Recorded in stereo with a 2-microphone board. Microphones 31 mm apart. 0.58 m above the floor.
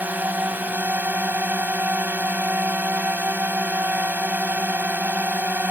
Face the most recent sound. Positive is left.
turn(degrees=-70)  # may be behind; listen again after turning